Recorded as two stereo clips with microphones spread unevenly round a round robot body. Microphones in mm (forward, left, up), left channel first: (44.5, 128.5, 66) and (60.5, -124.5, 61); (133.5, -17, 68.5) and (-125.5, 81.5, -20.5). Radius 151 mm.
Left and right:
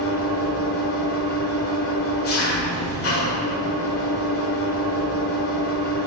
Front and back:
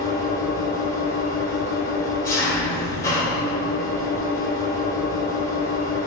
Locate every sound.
0.0 s an engine running: 65° left, 1.7 m